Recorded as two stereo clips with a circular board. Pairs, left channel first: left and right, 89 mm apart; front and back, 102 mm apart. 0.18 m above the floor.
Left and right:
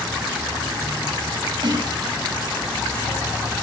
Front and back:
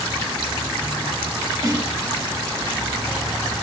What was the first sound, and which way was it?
A snare drum, 125° right.